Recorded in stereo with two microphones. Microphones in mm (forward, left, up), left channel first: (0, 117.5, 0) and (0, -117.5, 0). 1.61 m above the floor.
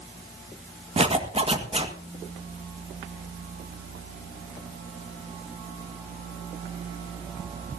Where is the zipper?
25° right (ahead or behind), 1.9 m.